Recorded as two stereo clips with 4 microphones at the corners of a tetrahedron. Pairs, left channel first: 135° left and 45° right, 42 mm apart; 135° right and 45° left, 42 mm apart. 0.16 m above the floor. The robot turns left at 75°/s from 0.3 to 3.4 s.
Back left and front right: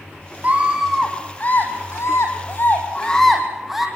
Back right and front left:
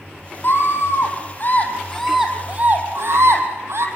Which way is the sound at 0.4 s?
100° right.